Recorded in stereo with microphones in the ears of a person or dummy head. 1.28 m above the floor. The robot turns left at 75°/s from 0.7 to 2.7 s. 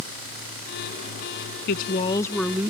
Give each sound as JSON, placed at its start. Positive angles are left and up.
{"t": 1.7, "sound": "a woman speaking", "azimuth_deg": 60}